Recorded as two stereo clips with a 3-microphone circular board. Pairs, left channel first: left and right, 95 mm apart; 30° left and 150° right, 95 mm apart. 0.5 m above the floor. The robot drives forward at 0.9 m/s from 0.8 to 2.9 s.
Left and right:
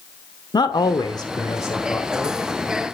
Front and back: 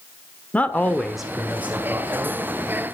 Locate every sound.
0.5 s a man speaking: 100° left, 1.0 m; by 2.4 s 155° left, 1.9 m